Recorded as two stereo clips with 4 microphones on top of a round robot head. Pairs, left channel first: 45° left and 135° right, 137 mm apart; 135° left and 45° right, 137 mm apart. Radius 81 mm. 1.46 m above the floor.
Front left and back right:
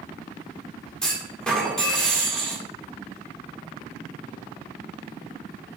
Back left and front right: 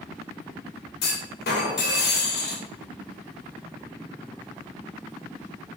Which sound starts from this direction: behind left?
A clunk, at 1.0 s.